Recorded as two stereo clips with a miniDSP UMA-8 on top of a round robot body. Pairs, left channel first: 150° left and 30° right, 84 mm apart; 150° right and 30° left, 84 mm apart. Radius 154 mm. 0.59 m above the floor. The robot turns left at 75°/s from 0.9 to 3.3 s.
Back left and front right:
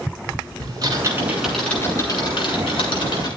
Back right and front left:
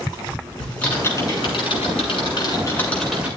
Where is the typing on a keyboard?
75° right, 7 m; by 3.3 s 105° left, 7 m.